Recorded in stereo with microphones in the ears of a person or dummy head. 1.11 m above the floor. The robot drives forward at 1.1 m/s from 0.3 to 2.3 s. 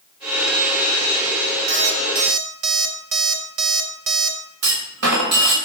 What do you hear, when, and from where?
1.7 s an alarm clock: 35° right (ahead or behind), 1.2 m; by 4.4 s 50° right (ahead or behind), 0.8 m
4.6 s a clunk: 75° right (ahead or behind), 1.8 m